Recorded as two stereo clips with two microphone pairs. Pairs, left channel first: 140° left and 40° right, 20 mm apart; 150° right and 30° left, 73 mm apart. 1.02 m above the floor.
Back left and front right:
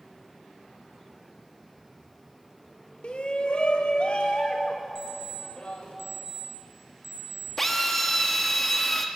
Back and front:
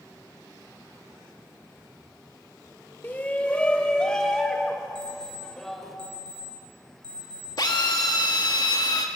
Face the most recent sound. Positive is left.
turn(degrees=-140)